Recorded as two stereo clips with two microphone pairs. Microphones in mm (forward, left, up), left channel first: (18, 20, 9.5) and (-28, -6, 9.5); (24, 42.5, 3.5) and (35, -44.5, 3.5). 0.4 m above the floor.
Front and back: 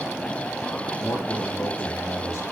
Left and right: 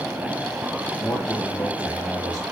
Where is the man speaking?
45° left, 8 m.